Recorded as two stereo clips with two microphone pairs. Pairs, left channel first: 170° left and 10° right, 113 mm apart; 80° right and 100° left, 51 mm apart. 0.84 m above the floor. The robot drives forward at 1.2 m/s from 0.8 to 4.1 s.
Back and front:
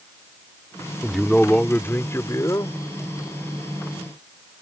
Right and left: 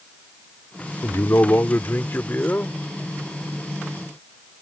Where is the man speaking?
100° right; by 2.8 s 135° right.